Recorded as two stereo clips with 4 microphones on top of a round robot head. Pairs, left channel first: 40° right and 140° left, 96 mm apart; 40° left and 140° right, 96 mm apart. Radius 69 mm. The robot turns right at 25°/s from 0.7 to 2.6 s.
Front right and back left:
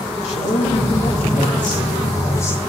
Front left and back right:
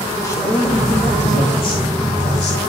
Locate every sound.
0.2 s a man speaking: 20° right, 3.5 m; by 2.6 s 30° left, 3.5 m